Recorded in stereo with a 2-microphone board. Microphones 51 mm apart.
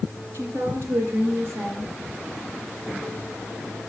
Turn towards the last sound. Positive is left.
turn(degrees=-55)  # may be behind; listen again after turning